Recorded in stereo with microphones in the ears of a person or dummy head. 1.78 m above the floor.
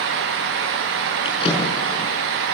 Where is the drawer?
30° left (ahead or behind), 5.5 m.